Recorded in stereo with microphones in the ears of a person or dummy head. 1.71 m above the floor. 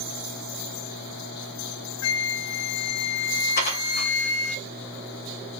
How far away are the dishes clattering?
About 2 m.